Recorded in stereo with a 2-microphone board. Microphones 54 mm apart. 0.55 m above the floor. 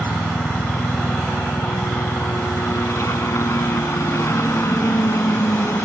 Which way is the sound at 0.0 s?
60° left (ahead or behind).